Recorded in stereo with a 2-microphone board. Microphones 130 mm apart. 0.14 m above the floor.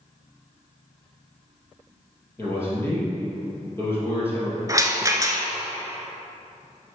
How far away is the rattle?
About 0.8 m.